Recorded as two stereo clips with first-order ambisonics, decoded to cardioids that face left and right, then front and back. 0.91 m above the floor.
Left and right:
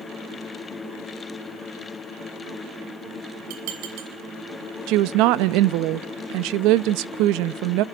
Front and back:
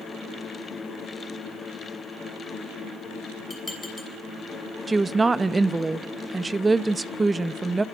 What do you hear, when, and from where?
3.5 s dishes clattering: 80° right, 4 m
4.9 s a woman speaking: 100° right, 0.5 m